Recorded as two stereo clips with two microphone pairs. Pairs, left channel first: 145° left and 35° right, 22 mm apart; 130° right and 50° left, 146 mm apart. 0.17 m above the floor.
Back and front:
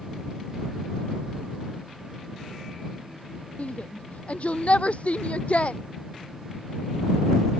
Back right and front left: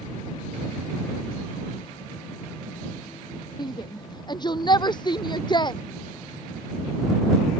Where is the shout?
170° left.